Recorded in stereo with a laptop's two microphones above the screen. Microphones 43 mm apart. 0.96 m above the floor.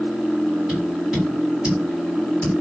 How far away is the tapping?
About 1.8 m.